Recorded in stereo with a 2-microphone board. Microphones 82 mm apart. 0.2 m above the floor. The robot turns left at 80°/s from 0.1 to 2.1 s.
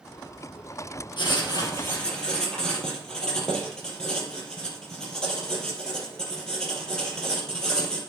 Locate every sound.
1.2 s writing: 85° left, 2.5 m; by 8.0 s 10° left, 2.5 m